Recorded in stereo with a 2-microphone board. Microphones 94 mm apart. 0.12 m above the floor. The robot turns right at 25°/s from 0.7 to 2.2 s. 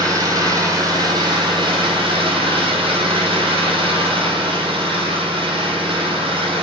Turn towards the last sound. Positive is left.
turn(degrees=-105)